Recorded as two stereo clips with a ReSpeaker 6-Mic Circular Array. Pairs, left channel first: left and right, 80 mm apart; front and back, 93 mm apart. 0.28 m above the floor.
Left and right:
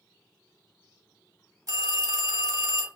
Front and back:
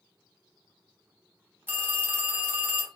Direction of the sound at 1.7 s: 115° right.